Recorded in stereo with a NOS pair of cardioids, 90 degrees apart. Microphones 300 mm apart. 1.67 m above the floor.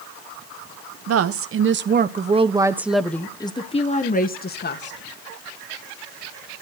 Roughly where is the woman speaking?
Ahead right.